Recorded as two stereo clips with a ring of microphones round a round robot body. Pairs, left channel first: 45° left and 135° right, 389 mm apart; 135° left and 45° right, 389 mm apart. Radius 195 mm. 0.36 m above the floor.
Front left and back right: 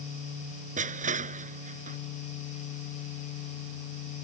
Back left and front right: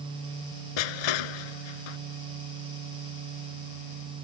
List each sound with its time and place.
0.8 s crushing: 155° left